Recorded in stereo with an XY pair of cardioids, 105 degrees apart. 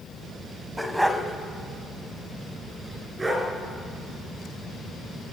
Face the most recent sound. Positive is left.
turn(degrees=-20)